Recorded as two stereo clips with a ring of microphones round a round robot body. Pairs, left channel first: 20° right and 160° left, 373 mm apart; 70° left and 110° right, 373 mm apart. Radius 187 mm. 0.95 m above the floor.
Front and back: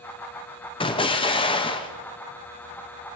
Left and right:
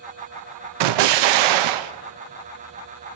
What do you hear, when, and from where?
0.8 s an explosion: 100° right, 0.5 m